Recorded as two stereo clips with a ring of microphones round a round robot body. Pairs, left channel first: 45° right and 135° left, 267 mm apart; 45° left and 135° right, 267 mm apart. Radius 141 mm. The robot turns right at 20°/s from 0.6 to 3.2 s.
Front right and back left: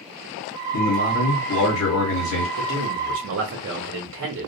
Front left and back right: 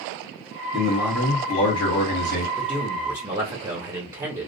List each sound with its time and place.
0.7 s a man speaking: 45° right, 1.6 m; by 2.5 s 10° right, 1.6 m
2.6 s a man speaking: 140° left, 0.9 m; by 4.5 s 150° left, 0.9 m